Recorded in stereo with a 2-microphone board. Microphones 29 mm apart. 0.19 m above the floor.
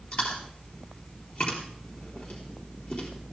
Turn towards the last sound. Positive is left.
turn(degrees=60)  # may be behind; listen again after turning